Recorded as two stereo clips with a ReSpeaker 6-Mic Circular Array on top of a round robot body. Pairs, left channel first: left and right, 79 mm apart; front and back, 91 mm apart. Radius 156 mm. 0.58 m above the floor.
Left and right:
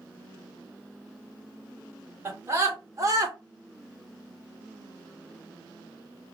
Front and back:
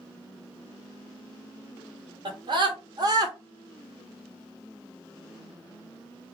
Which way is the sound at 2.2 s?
150° right.